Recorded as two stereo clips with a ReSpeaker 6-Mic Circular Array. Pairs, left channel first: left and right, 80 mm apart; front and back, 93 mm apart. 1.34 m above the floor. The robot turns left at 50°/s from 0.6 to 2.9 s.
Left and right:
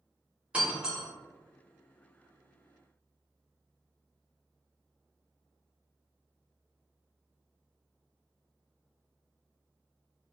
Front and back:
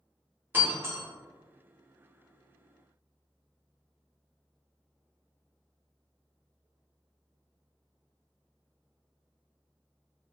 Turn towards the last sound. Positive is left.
turn(degrees=95)